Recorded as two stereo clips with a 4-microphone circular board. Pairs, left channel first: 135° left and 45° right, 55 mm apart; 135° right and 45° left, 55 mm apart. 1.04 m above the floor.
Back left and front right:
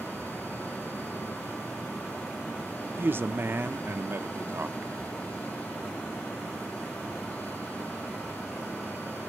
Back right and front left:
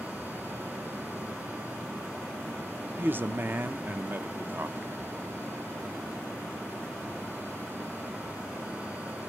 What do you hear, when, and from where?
3.0 s a man speaking: straight ahead, 0.7 m